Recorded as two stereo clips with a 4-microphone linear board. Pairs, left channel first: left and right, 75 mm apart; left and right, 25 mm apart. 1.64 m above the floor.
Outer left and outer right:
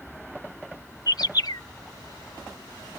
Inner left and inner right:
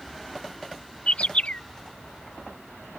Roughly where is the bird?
Left.